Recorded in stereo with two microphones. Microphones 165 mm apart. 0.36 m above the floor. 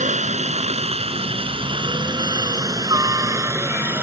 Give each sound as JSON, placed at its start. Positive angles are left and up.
{"t": 0.0, "sound": "a helicopter", "side_deg": -45}